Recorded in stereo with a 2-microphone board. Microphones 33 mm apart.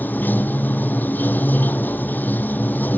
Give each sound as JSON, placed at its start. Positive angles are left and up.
{"t": 0.0, "sound": "running water", "side_deg": 70}